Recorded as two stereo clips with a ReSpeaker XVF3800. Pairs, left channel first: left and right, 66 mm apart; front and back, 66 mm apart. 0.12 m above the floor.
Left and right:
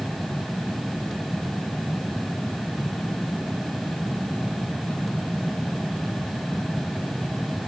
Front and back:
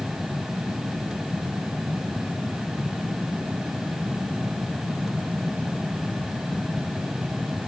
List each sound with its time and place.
Only background noise.